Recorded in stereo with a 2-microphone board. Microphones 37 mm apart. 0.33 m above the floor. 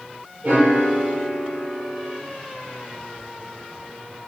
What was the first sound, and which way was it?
A piano, 40° right (ahead or behind).